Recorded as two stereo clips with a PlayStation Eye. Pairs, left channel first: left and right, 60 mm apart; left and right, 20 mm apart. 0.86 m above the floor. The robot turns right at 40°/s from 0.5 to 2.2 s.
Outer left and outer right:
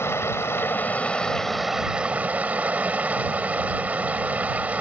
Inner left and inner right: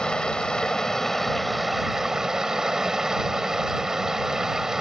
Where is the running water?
135° left; by 4.8 s 155° right.